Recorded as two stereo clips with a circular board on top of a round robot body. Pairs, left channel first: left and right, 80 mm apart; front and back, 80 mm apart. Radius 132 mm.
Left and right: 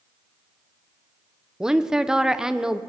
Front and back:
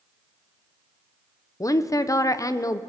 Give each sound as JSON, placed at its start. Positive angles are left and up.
{"t": 1.6, "sound": "a woman speaking", "azimuth_deg": -10, "distance_m": 0.7}